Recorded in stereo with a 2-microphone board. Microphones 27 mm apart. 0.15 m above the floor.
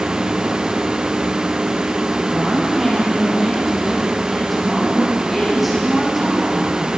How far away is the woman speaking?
About 5 m.